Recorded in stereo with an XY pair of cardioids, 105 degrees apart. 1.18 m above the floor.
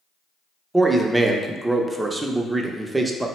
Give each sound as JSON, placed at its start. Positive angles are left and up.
{"t": 0.7, "sound": "a man speaking", "azimuth_deg": -15, "distance_m": 0.5}